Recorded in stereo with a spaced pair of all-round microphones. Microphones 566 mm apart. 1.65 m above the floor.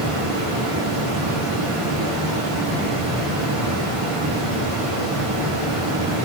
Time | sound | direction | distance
0.0 | running water | 65° right (ahead or behind) | 1.1 m